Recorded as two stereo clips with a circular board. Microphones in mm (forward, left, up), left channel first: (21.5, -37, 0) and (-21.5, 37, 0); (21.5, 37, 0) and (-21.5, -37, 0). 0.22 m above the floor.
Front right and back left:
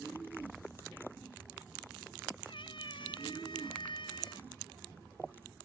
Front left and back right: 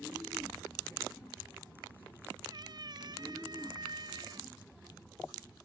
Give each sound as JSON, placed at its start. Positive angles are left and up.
{"t": 2.5, "sound": "a cat meowing", "azimuth_deg": -80}